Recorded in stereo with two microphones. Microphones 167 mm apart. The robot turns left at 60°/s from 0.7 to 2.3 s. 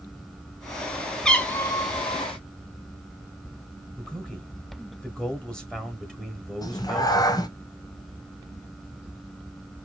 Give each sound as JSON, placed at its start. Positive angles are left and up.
{"t": 1.2, "sound": "a cat meowing", "azimuth_deg": 175, "distance_m": 0.8}
{"t": 4.0, "sound": "a man speaking", "side_deg": 5, "distance_m": 1.3}
{"t": 6.6, "sound": "a cat meowing", "side_deg": 25, "distance_m": 0.7}